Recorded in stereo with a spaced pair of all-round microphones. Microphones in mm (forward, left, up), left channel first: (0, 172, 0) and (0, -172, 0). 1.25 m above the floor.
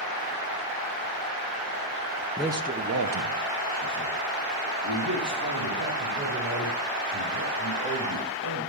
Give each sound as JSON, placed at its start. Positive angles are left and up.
{"t": 2.4, "sound": "a man speaking", "side_deg": 5, "distance_m": 0.5}